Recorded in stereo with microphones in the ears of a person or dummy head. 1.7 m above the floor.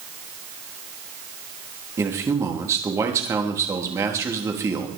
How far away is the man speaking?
About 3 m.